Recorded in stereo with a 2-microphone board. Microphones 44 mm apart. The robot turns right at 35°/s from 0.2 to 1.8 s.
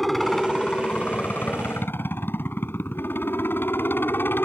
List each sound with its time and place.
0.0 s a helicopter: 5° left; by 4.5 s 60° left